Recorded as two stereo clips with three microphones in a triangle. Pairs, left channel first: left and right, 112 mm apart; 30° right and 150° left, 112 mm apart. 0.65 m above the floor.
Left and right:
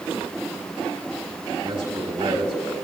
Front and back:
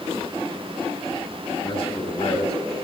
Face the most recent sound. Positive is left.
turn(degrees=-55)